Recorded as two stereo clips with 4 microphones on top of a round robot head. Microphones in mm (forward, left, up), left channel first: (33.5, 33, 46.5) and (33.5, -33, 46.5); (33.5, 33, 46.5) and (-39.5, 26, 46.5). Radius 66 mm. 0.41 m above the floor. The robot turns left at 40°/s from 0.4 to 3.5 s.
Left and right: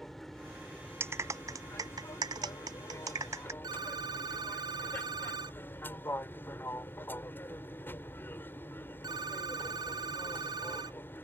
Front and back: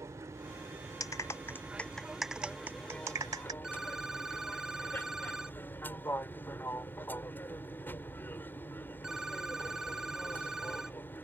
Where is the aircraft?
175° left; by 11.2 s 50° left.